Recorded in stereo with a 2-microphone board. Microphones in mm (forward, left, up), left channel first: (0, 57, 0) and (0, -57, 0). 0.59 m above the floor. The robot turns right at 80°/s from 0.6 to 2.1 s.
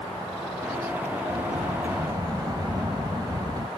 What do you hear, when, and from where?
1.3 s a sliding door: 100° right; by 3.7 s 35° right